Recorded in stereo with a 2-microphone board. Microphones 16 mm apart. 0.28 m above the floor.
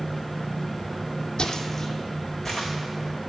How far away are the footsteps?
About 0.7 m.